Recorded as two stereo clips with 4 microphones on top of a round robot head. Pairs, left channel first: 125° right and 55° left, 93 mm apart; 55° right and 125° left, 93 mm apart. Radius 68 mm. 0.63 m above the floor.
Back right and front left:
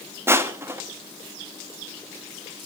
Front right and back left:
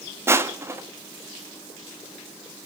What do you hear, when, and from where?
0.3 s crushing: 90° left, 1.3 m